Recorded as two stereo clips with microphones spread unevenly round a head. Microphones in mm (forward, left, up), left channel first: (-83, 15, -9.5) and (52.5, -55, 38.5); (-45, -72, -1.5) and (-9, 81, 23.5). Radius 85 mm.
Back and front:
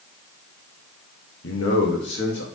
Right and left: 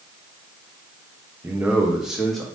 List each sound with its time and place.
1.4 s a man speaking: 150° left, 0.9 m; by 2.5 s 165° left, 1.5 m